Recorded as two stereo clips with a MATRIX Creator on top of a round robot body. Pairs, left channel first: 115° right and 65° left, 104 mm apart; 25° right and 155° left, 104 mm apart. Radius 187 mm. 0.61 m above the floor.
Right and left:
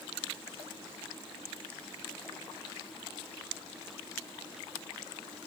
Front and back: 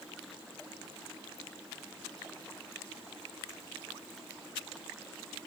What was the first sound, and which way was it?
Only background noise.